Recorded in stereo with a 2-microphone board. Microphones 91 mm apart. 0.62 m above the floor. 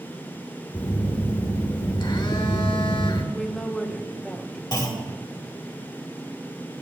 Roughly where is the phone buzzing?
Left.